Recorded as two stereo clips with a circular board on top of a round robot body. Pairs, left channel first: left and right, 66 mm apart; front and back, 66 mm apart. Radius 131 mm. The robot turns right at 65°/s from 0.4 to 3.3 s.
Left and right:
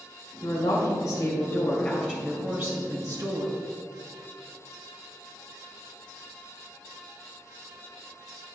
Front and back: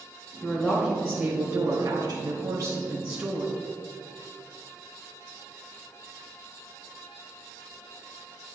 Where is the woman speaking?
60° left, 2 m; by 3.6 s 115° right, 2 m.